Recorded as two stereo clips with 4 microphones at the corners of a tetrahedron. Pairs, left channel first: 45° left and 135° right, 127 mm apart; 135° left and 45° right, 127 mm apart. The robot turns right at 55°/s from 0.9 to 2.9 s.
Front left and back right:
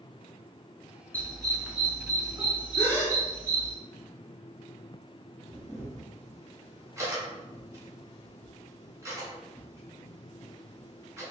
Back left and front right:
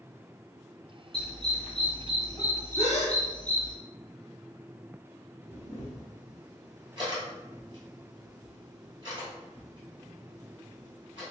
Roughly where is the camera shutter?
Right.